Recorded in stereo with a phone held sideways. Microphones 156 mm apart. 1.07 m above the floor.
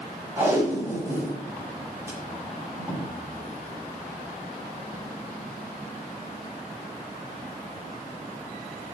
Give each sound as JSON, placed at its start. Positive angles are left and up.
{"t": 0.4, "sound": "tape being pulled", "side_deg": -15, "distance_m": 6.0}